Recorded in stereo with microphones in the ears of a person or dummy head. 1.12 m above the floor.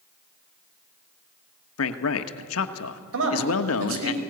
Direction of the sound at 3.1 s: 70° right (ahead or behind).